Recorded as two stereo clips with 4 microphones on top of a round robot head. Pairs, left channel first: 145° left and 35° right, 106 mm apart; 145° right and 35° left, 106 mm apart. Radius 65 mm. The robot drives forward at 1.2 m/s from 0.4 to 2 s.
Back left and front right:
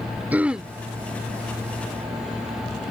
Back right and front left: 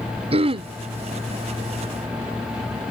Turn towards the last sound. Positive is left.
turn(degrees=140)